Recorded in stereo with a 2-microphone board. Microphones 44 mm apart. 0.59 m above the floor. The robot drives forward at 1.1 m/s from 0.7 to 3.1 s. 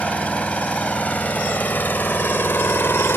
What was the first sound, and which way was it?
An engine running, 35° left (ahead or behind).